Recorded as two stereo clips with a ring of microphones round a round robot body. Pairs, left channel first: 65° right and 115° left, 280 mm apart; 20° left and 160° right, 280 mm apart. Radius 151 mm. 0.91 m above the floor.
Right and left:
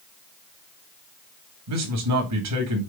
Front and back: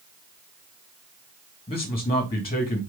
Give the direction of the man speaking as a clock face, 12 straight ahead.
9 o'clock.